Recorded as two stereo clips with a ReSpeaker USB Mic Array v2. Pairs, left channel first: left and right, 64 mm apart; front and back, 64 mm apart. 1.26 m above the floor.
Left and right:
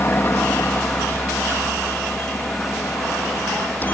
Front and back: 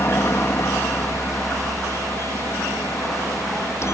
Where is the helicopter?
40° left; by 4.0 s 30° left.